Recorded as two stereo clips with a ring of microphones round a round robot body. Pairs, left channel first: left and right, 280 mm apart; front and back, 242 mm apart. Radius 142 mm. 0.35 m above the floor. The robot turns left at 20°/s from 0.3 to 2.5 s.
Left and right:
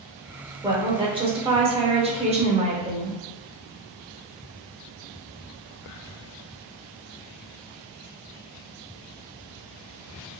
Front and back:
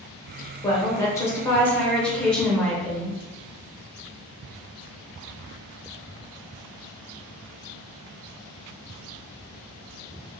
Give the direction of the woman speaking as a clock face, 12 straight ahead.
2 o'clock.